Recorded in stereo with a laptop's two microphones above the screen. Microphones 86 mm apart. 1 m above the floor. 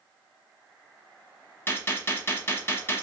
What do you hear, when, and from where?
1.7 s a gunshot: 30° left (ahead or behind), 0.7 m